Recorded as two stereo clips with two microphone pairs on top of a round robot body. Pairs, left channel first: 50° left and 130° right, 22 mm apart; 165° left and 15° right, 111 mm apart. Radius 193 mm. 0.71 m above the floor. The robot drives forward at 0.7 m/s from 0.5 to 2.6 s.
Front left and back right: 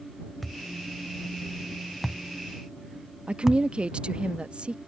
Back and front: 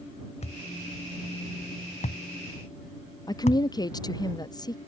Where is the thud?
140° left; by 3.6 s 160° left.